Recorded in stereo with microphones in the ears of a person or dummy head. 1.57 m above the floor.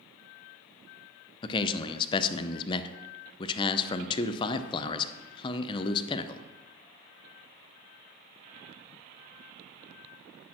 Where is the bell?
I don't hear a bell.